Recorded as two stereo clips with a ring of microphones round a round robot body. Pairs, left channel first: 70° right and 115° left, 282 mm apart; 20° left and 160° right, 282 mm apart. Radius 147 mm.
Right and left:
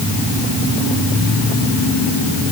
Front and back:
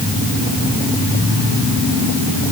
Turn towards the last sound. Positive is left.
No sound to turn to.